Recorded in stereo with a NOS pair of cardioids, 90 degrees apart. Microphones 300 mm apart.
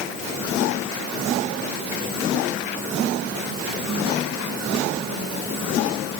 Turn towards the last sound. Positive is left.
No sound to turn to.